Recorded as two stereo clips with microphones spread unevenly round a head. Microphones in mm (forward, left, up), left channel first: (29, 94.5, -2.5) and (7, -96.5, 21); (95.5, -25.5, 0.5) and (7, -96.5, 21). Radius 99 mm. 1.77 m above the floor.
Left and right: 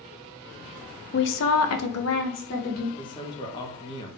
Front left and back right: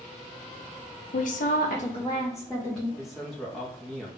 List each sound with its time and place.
1.1 s a woman speaking: 50° left, 0.5 m; by 2.9 s 130° left, 0.9 m
3.0 s a man speaking: 145° left, 0.6 m